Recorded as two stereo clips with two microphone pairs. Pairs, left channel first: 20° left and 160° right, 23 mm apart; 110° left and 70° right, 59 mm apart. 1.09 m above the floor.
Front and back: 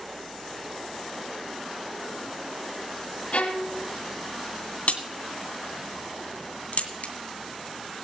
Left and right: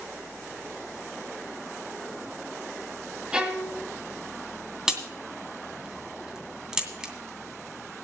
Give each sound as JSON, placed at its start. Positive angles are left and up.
{"t": 3.3, "sound": "a violin", "azimuth_deg": 5, "distance_m": 2.0}
{"t": 4.9, "sound": "a crack", "azimuth_deg": 10, "distance_m": 2.5}